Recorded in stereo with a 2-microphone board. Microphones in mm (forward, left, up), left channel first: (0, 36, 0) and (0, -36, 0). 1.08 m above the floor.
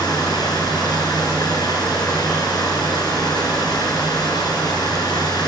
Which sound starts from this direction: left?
Running water, at 0.0 s.